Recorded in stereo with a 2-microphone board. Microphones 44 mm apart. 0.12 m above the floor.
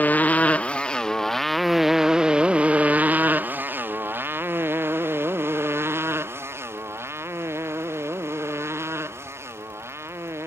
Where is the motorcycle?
40° left (ahead or behind); by 10.5 s 80° right.